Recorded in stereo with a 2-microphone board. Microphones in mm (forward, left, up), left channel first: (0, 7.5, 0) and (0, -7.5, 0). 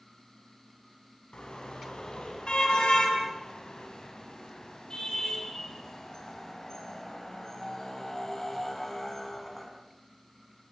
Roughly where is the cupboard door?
No cupboard door in this recording.